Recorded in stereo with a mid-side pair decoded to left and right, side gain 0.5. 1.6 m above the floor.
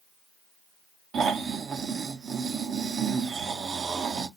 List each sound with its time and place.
1.1 s snoring: 45° right, 0.8 m